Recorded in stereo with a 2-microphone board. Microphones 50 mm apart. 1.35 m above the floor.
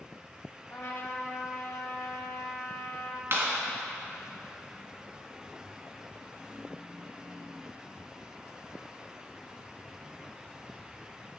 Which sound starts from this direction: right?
A clap, at 3.3 s.